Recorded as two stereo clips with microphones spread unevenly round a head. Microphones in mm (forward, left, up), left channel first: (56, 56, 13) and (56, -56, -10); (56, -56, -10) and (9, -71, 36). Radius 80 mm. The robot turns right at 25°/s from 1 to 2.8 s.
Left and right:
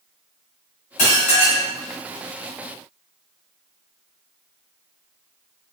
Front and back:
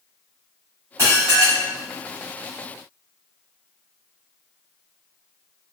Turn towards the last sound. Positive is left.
turn(degrees=170)